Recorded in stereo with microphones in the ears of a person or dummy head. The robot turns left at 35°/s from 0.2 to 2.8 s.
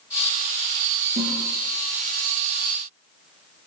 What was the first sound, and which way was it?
A toilet flushing, 35° right (ahead or behind).